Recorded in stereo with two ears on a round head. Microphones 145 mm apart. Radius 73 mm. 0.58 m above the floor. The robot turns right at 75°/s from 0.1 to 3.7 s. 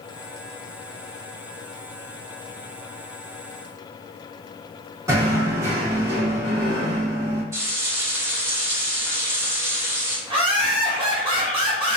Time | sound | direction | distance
5.1 | knocking | 20° right (ahead or behind) | 1.2 m
7.5 | frying | 20° right (ahead or behind) | 1.6 m
10.3 | laughter | 30° right (ahead or behind) | 1.2 m